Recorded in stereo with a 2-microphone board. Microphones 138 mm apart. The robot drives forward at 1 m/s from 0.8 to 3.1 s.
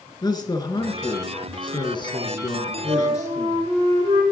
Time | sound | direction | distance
0.2 | a man speaking | 30° left (ahead or behind) | 1.9 m
2.9 | a flute | 45° right (ahead or behind) | 6.5 m